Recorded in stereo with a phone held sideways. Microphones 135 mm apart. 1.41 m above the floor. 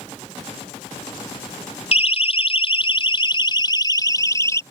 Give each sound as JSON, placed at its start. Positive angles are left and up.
{"t": 1.9, "sound": "a siren", "side_deg": 50}